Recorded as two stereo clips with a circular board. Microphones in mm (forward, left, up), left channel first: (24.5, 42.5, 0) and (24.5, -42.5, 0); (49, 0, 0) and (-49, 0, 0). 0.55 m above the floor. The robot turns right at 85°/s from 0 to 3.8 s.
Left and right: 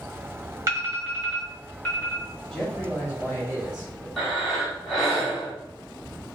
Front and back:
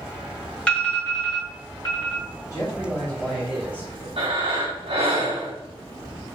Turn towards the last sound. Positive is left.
turn(degrees=180)